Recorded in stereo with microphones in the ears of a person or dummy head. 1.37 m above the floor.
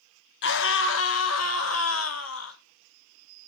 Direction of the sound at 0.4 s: 70° left (ahead or behind).